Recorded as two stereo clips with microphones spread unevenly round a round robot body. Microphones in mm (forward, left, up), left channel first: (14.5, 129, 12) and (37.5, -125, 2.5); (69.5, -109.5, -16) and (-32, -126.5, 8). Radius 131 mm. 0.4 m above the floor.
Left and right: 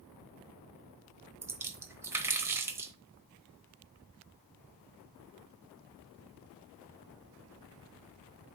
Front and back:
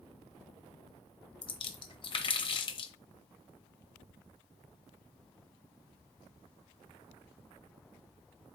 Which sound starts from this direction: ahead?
A splash, at 1.4 s.